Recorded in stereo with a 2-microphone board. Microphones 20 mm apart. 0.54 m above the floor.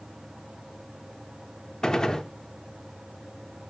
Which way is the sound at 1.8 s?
35° left (ahead or behind).